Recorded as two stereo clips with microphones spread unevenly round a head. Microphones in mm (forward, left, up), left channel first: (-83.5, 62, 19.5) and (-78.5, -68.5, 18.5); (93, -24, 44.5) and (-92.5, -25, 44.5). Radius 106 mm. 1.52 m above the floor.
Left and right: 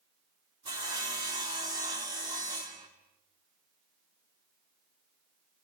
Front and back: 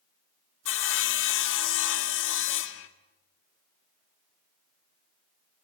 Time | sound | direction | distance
0.7 | sawing | 15° right | 1.9 m